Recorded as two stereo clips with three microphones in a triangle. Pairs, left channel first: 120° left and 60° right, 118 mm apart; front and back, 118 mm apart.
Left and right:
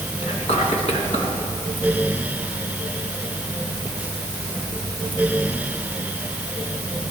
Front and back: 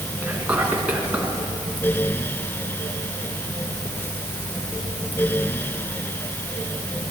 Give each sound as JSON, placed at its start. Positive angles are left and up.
{"t": 0.2, "sound": "whispering", "azimuth_deg": 100, "distance_m": 3.0}